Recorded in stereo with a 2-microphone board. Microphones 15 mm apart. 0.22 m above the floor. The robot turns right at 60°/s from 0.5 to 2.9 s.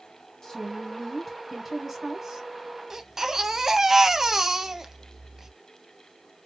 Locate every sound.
0.4 s a woman speaking: 120° left, 1.9 m; by 2.5 s 125° right, 1.9 m
2.9 s a baby crying: 30° right (ahead or behind), 0.6 m